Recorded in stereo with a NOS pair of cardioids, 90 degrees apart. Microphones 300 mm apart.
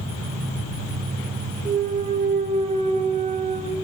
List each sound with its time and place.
1.6 s a clunk: 25° right, 1.3 m